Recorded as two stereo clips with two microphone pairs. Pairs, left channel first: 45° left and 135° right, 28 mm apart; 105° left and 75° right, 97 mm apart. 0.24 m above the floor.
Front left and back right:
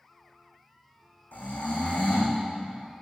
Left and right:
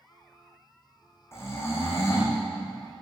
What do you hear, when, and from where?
1.3 s snoring: 45° left, 3 m